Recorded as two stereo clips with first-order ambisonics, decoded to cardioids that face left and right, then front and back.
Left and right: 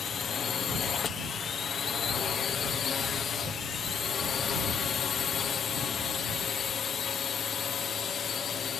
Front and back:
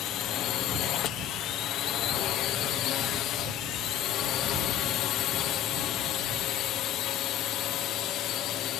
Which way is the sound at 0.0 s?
30° left.